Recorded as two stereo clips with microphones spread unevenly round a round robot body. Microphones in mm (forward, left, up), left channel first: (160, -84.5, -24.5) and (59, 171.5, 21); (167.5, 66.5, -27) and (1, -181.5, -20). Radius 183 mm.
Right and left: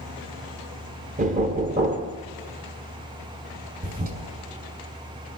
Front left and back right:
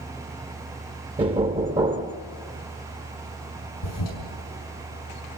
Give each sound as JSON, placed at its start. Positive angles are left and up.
{"t": 1.2, "sound": "knocking", "azimuth_deg": 170, "distance_m": 0.9}
{"t": 3.8, "sound": "a toilet flushing", "azimuth_deg": 50, "distance_m": 6.0}